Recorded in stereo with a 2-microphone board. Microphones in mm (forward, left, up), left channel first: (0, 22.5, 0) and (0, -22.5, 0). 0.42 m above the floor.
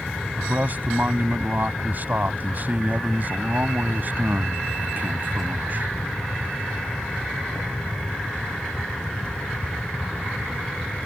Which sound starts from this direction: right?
A man speaking, at 0.4 s.